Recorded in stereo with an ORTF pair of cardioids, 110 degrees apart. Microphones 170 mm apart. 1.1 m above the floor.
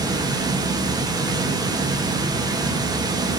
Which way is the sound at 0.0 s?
20° right.